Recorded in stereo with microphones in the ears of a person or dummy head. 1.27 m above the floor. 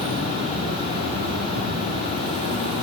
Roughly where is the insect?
Right.